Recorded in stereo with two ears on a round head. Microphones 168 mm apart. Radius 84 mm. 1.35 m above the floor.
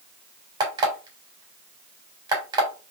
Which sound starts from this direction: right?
An alarm clock, at 0.6 s.